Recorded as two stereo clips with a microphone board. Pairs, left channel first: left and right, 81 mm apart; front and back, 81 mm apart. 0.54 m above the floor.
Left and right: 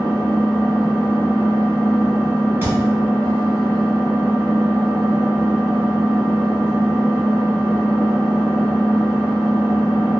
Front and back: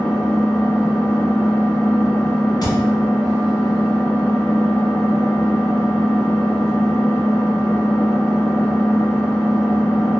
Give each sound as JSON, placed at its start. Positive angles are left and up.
{"t": 0.0, "sound": "an engine running", "azimuth_deg": -65, "distance_m": 1.4}
{"t": 2.6, "sound": "a thud", "azimuth_deg": -30, "distance_m": 0.9}